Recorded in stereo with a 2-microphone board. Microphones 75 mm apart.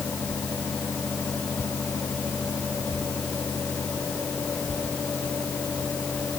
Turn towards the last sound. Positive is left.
No sound to turn to.